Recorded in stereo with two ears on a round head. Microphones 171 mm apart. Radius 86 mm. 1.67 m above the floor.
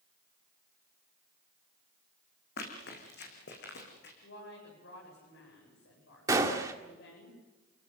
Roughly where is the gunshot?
Centre.